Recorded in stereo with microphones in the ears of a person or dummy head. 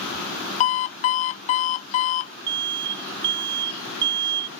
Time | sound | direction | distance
0.6 | an alarm clock | 45° left (ahead or behind) | ?
2.5 | an alarm | 60° right (ahead or behind) | ?